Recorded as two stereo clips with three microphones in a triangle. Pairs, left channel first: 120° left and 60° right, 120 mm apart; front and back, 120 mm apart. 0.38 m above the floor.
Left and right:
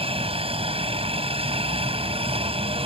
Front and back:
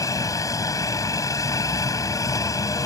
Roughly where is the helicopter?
Ahead right.